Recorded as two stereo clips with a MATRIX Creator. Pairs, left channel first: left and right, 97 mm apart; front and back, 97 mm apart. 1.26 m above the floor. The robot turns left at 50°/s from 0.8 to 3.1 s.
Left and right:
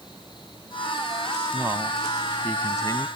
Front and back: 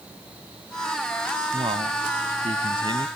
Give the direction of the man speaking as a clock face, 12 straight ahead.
5 o'clock.